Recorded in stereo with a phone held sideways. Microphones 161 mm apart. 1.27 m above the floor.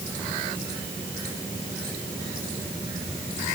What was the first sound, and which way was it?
Only background noise.